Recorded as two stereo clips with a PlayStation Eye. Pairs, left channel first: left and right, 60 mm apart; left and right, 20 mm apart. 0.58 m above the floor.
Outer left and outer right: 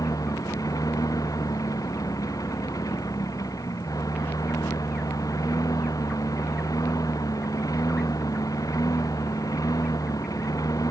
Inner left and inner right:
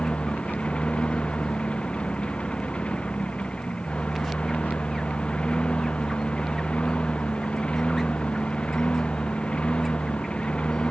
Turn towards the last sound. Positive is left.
turn(degrees=70)  # may be behind; listen again after turning